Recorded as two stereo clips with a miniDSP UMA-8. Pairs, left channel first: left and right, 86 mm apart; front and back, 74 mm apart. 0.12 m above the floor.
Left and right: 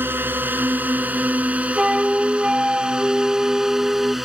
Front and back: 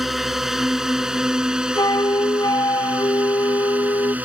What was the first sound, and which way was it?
A drone, 100° right.